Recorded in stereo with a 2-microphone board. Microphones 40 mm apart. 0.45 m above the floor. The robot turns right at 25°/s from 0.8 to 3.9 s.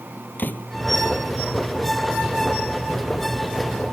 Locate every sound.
0.4 s a door slam: 50° left (ahead or behind)